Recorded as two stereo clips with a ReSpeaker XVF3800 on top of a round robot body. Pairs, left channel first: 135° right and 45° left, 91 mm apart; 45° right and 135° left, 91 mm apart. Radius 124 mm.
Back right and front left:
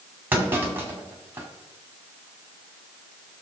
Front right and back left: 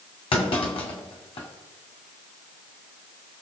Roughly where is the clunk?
Ahead right.